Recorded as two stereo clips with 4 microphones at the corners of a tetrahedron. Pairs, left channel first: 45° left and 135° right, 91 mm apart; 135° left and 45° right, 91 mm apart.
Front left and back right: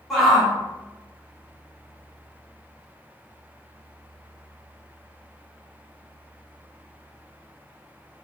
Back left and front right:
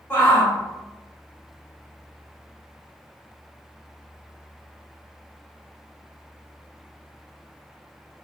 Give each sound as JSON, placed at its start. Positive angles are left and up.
{"t": 0.1, "sound": "a shout", "azimuth_deg": 140, "distance_m": 0.8}